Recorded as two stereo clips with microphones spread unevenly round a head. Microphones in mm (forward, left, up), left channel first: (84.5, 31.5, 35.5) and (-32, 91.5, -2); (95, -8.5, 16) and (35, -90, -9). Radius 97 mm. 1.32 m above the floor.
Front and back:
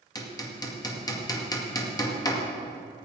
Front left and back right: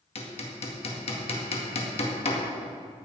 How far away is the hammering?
About 2 m.